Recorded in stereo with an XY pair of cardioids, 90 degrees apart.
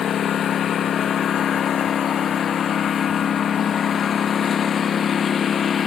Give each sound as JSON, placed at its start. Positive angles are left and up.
{"t": 0.0, "sound": "a lawn mower", "azimuth_deg": 65}